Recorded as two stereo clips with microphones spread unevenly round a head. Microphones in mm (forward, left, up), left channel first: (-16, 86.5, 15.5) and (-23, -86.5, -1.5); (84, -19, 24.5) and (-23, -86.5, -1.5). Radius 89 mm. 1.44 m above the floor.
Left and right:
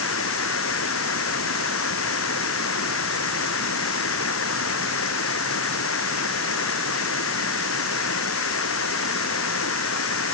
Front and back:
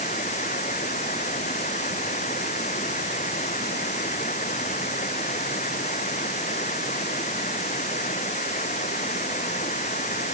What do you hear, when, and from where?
0.0 s running water: 85° left